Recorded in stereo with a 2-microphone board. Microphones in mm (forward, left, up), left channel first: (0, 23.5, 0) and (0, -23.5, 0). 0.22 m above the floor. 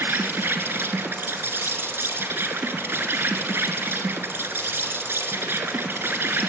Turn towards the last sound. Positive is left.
turn(degrees=-60)  # may be behind; listen again after turning